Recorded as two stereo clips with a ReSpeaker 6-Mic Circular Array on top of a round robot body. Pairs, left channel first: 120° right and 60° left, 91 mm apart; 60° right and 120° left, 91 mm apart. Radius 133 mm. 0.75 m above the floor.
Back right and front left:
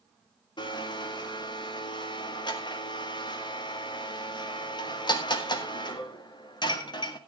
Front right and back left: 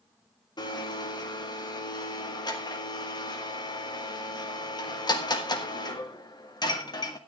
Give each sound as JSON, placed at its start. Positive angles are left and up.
{"t": 0.6, "sound": "a blender", "azimuth_deg": -95, "distance_m": 1.9}